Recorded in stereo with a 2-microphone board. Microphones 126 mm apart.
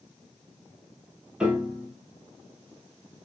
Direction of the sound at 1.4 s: 5° right (ahead or behind).